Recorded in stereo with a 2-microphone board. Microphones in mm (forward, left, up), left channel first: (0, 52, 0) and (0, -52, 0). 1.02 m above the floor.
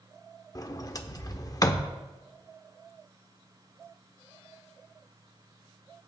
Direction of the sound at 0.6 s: 35° left (ahead or behind).